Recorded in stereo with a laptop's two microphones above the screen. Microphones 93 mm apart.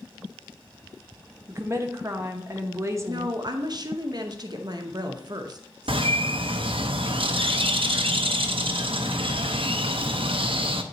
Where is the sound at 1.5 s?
30° right (ahead or behind), 0.7 m.